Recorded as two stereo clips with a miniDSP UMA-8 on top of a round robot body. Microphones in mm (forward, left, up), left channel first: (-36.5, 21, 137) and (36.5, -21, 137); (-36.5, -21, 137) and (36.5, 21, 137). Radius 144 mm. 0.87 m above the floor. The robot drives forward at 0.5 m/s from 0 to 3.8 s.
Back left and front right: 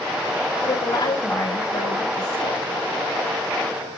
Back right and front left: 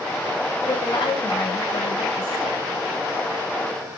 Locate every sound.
0.6 s a woman speaking: 165° right, 7 m